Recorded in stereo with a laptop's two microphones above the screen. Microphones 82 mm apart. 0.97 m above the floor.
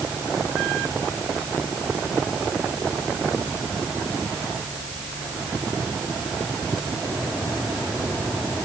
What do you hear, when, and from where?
Only background noise.